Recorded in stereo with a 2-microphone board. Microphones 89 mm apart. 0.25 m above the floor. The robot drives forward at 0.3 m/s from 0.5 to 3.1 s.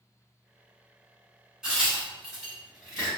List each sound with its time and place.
1.6 s a crack: 10° right (ahead or behind), 1.6 m; by 3.1 s 5° right (ahead or behind), 1.9 m